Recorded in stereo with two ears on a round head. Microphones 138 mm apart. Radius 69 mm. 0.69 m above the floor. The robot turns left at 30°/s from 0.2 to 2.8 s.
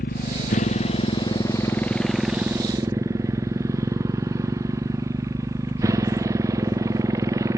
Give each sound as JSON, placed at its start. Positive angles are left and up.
{"t": 0.0, "sound": "a motorcycle", "side_deg": 60}